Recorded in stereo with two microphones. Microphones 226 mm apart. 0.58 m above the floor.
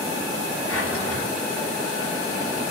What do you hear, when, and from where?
0.7 s a drawer: 75° left (ahead or behind), 3 m